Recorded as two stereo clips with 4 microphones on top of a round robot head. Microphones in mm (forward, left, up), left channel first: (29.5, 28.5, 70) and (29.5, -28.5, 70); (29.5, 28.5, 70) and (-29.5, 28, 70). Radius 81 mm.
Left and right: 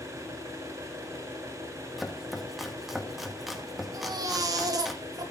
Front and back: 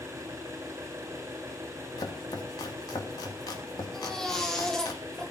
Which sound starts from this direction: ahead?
Chopping, at 2.0 s.